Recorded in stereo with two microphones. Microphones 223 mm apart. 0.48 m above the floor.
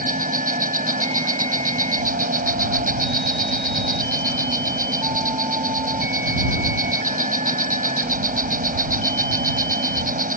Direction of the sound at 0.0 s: 40° right (ahead or behind).